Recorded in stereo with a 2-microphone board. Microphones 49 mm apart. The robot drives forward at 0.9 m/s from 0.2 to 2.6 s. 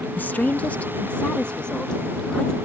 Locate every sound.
0.2 s a woman speaking: 40° left (ahead or behind); by 2.6 s 15° left (ahead or behind)